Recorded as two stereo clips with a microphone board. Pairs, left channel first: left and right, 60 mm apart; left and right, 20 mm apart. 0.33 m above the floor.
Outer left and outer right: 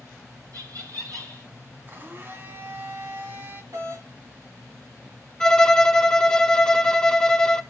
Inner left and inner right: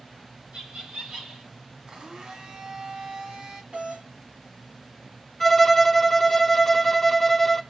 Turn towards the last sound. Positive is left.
turn(degrees=10)  # may be behind; listen again after turning